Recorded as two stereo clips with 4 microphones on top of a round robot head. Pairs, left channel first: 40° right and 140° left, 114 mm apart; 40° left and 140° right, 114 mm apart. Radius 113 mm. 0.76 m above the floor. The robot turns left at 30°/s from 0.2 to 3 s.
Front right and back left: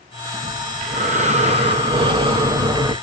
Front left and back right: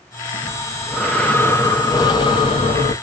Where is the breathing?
145° left, 0.7 m; by 2.9 s 70° left, 0.7 m.